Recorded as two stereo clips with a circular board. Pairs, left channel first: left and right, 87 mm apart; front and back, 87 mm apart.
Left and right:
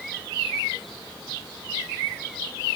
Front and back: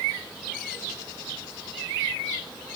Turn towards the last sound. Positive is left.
No sound to turn to.